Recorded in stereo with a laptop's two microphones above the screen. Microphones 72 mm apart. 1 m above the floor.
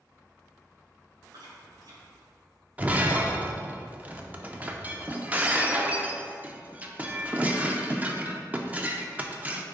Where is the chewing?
70° right (ahead or behind), 1.6 m.